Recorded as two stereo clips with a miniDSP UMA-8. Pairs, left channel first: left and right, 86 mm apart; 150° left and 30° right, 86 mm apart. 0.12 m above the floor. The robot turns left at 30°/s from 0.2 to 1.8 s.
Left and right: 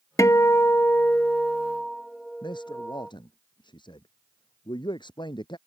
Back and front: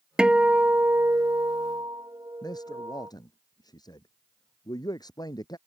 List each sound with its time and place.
0.2 s a guitar: 50° left; by 3.1 s straight ahead
2.4 s a man speaking: 115° left